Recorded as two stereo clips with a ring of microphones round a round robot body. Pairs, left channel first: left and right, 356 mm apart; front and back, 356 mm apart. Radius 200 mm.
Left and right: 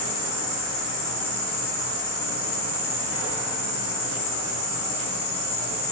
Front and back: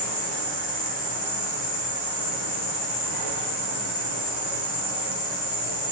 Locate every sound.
0.0 s an insect: 30° left, 1.0 m